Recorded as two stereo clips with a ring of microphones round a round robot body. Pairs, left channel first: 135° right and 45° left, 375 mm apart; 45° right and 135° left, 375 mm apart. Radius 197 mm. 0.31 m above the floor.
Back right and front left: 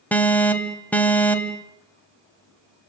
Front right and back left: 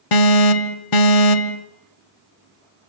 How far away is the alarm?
About 2 m.